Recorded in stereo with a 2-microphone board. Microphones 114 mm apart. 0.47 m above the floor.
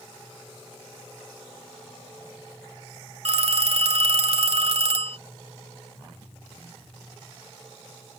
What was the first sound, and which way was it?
A phone ringing, 70° right (ahead or behind).